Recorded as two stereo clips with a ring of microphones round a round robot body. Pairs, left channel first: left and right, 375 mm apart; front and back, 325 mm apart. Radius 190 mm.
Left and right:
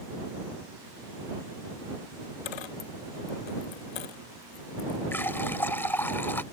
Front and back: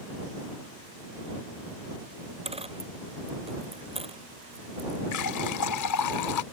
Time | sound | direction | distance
2.5 | a dropped coin | 105° left | ?
5.1 | a running tap | 5° left | ?